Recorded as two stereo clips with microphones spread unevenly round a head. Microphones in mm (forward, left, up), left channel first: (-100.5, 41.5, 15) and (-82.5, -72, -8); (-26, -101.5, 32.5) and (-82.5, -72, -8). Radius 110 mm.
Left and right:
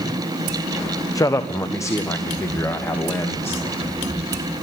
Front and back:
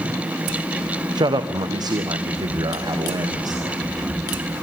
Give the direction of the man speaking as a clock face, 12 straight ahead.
7 o'clock.